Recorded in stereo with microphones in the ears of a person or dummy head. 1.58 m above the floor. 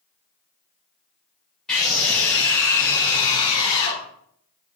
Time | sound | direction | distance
1.7 | a scream | centre (ahead or behind) | 5 m